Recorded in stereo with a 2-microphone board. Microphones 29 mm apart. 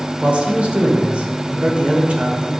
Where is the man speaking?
45° right (ahead or behind), 1.7 m.